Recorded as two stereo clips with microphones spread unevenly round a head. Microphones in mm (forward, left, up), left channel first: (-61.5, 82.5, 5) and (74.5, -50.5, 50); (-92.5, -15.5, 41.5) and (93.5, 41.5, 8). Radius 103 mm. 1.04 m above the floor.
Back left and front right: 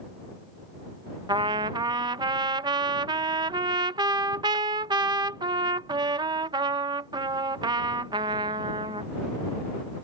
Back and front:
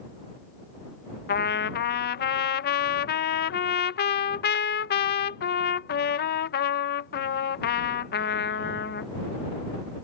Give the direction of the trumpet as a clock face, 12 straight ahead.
4 o'clock.